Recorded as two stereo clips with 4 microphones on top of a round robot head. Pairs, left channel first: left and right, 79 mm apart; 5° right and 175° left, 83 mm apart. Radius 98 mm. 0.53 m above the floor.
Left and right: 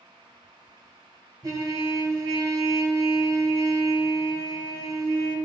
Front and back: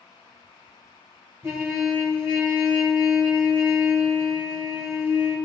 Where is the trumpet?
130° right, 2.5 m.